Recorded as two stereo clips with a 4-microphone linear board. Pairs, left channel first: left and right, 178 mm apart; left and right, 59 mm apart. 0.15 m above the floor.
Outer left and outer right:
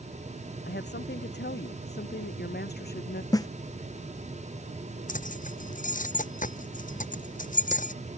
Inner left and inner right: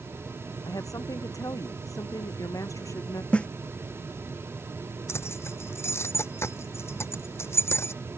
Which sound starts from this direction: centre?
A snare drum, at 3.3 s.